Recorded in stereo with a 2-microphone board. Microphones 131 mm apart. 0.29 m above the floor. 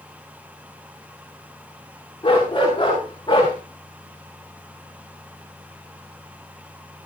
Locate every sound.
2.2 s a dog barking: 35° left (ahead or behind), 10 m